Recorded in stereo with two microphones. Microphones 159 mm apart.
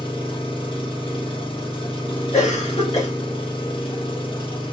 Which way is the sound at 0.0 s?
35° left (ahead or behind).